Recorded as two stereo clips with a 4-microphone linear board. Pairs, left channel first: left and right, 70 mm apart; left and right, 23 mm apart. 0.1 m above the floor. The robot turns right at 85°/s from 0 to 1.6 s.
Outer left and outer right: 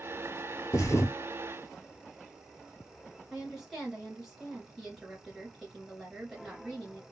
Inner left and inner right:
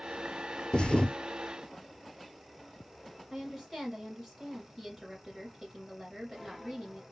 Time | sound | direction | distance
0.7 | a thud | 90° left | 0.7 m
3.3 | a woman speaking | 5° right (ahead or behind) | 1.7 m